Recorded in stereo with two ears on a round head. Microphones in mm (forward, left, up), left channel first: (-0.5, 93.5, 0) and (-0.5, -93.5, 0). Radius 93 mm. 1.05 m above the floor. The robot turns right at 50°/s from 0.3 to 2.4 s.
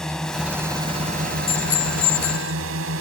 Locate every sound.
0.0 s a drone: 175° left; by 3.0 s 80° right
1.5 s a bicycle bell: 30° left; by 2.5 s 75° left